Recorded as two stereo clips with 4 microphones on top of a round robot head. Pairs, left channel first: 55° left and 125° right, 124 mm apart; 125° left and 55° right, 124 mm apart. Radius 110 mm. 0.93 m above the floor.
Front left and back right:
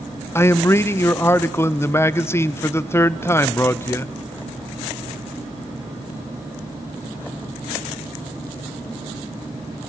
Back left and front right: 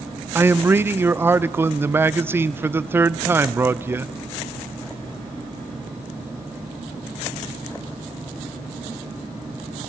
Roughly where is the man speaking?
Ahead.